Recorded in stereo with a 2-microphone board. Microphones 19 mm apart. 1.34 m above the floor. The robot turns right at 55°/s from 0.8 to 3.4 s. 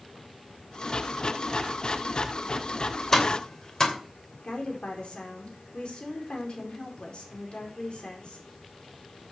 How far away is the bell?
No bell in this recording.